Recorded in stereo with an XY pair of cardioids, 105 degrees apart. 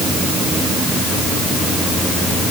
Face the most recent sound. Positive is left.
No sound to turn to.